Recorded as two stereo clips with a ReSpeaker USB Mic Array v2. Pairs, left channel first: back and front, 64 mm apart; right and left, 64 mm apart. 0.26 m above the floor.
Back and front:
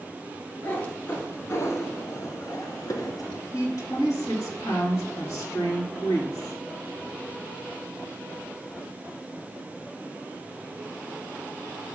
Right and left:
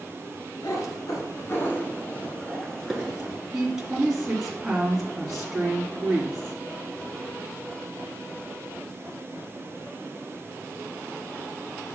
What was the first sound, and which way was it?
A cat meowing, 110° right.